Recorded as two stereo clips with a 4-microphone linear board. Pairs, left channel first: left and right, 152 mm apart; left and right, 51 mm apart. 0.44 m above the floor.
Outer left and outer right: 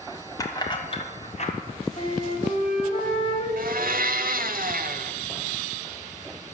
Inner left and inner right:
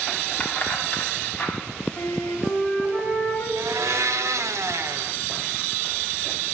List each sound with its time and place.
0.4 s keys jangling: 20° left (ahead or behind), 1.7 m; by 1.5 s 50° left (ahead or behind), 1.9 m
2.0 s a flute: 40° left (ahead or behind), 2.5 m
3.6 s a blender: 70° right (ahead or behind), 0.7 m